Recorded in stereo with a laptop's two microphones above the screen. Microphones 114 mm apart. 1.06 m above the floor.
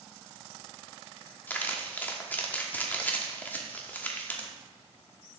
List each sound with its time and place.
1.5 s crumpling: 15° left (ahead or behind), 1.0 m